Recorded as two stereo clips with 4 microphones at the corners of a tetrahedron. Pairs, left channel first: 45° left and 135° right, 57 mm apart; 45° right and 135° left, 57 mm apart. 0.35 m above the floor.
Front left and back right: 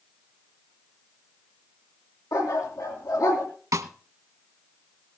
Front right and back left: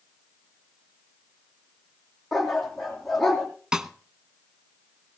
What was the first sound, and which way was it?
A dog barking, 45° left.